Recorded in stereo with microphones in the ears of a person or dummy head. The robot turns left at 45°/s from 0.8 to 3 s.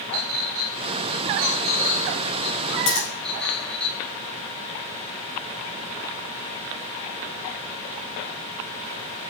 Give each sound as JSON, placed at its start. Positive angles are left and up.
{"t": 0.1, "sound": "a clink", "side_deg": -75, "distance_m": 2.0}
{"t": 2.9, "sound": "scissors", "side_deg": 85, "distance_m": 4.5}